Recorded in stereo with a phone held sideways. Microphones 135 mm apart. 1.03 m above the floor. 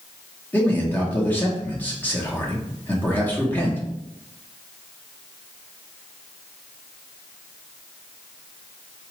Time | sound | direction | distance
0.5 | a man speaking | 15° left (ahead or behind) | 0.8 m